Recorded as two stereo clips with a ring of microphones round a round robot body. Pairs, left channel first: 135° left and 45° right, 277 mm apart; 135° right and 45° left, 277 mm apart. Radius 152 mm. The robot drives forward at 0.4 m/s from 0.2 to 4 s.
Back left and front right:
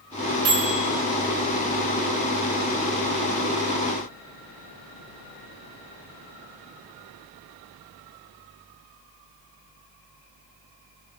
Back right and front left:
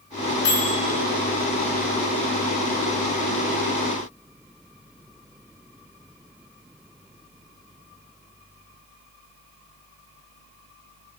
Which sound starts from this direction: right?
A microwave, at 0.5 s.